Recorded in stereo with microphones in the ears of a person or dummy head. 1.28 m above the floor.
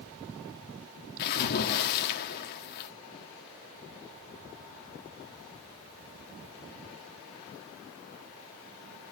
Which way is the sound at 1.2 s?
50° left (ahead or behind).